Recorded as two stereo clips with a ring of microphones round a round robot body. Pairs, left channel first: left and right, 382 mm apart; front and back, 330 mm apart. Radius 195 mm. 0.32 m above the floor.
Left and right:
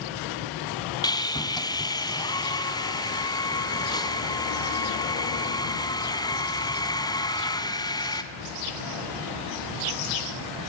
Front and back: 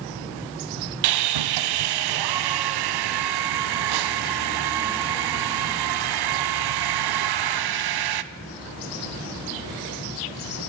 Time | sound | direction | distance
1.0 | sawing | 170° left | 1.0 m